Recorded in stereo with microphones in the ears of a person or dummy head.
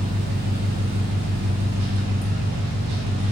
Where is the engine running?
50° right (ahead or behind), 1.0 m.